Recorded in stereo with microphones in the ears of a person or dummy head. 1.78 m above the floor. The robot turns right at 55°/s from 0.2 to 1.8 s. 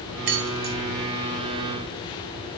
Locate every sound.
0.3 s keys jangling: 55° right (ahead or behind), 1.1 m; by 0.8 s 45° right (ahead or behind), 1.1 m